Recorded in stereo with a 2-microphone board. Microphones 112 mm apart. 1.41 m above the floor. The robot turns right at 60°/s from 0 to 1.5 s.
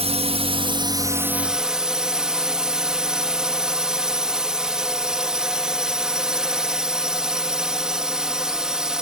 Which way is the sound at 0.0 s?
95° right.